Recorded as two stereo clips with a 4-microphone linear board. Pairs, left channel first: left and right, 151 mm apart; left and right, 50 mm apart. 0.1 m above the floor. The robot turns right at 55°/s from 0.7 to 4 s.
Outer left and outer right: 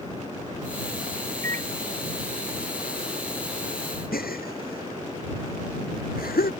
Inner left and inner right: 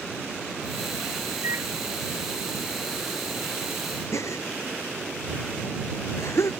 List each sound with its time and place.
1.4 s a microwave: 65° right (ahead or behind); by 1.7 s 50° right (ahead or behind)
4.1 s a gasp: 75° left (ahead or behind)